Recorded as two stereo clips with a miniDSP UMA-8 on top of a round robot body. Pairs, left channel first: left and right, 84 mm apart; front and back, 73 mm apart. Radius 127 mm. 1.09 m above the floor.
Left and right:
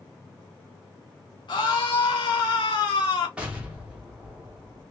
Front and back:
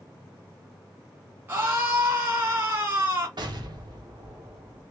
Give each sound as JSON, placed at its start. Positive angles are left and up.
{"t": 1.5, "sound": "a scream", "azimuth_deg": 115, "distance_m": 2.0}
{"t": 3.4, "sound": "an explosion", "azimuth_deg": -165, "distance_m": 1.5}